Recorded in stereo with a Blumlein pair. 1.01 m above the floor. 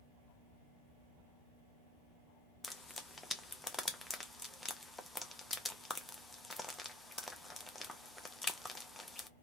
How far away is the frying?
About 0.7 m.